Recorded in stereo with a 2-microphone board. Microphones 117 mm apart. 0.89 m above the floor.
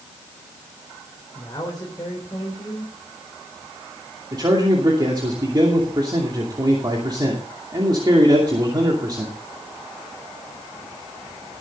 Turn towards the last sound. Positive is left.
turn(degrees=-35)  # may be behind; listen again after turning